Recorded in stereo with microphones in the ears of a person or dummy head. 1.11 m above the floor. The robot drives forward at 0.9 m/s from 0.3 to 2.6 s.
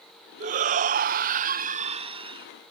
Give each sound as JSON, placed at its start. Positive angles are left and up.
{"t": 0.4, "sound": "a shout", "side_deg": -40}